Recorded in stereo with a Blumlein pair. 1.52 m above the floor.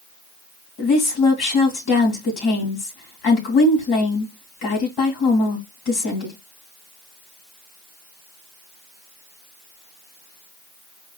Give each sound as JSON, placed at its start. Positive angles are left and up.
{"t": 0.8, "sound": "a woman speaking", "azimuth_deg": 35, "distance_m": 2.5}